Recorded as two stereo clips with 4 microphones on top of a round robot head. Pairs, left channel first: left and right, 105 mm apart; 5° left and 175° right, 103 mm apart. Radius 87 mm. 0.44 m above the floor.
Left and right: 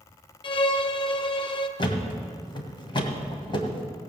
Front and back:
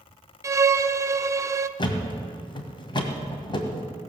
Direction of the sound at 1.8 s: 50° left.